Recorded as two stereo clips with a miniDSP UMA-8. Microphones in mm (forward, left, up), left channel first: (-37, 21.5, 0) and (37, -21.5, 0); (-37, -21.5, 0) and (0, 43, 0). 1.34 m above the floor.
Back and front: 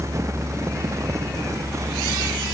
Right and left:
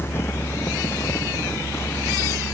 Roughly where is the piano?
No piano in this recording.